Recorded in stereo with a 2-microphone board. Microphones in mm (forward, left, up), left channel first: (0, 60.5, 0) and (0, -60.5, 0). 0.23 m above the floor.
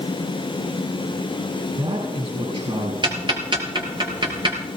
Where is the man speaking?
65° right (ahead or behind), 4.5 m.